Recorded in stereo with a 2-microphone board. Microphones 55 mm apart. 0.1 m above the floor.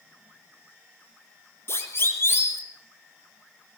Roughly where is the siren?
Left.